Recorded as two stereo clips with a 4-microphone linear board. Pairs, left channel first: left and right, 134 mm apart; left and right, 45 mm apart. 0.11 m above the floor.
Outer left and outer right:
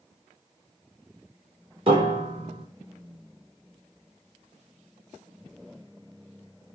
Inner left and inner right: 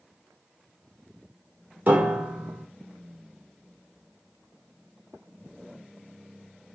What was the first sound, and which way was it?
A piano, 40° right (ahead or behind).